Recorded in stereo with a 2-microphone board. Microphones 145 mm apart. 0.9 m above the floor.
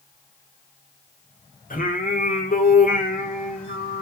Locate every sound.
1.7 s singing: 70° left (ahead or behind), 3 m